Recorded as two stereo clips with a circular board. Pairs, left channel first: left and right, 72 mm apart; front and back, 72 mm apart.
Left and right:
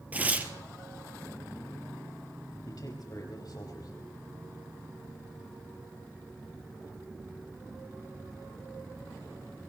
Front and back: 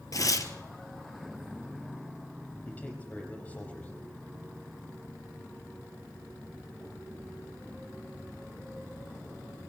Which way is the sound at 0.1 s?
25° right.